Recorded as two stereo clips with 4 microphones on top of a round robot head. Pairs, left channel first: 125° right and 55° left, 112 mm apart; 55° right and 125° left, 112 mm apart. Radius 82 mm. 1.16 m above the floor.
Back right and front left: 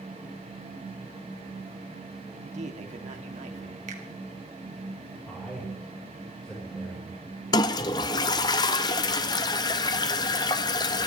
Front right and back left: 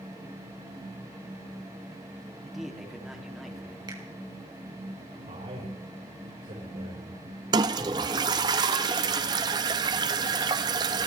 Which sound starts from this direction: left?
A finger snap, at 3.9 s.